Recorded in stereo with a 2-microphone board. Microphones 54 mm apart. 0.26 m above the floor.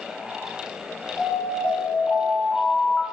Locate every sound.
1.2 s an alarm: 20° left (ahead or behind), 4.5 m